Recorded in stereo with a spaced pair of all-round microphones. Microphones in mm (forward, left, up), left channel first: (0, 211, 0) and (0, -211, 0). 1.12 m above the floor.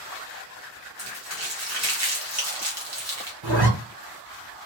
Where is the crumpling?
40° right (ahead or behind), 1.2 m.